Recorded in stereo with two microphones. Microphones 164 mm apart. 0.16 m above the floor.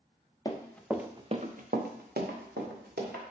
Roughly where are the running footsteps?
Left.